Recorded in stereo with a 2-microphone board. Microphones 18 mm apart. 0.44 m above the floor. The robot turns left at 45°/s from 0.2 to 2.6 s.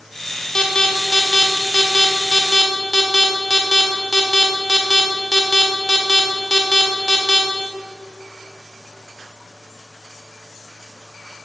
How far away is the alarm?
About 1.4 m.